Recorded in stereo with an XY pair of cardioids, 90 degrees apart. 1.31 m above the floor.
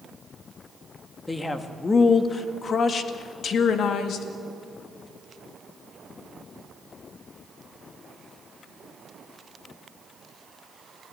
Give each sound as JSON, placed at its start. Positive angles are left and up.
{"t": 1.3, "sound": "a man speaking", "azimuth_deg": 20, "distance_m": 2.0}